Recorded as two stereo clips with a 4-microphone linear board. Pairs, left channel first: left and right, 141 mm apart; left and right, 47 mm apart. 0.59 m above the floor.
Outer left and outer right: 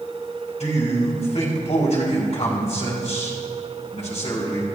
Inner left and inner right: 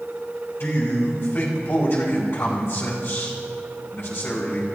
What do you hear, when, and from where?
0.6 s a man speaking: 60° left (ahead or behind), 5 m